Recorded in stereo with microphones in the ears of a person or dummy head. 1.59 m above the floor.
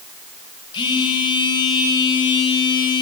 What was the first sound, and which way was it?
A phone buzzing, 25° left (ahead or behind).